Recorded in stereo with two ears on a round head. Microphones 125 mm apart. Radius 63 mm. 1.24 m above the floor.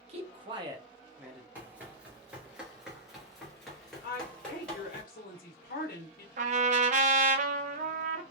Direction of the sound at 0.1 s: 50° right (ahead or behind).